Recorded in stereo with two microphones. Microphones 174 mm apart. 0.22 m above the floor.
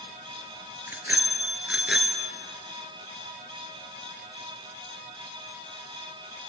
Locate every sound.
0.9 s a bicycle bell: 10° right (ahead or behind), 2.5 m; by 2.3 s centre (ahead or behind), 2 m